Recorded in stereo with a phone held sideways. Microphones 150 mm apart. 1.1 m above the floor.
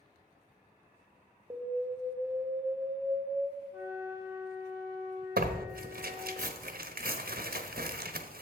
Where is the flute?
15° right (ahead or behind), 3 m.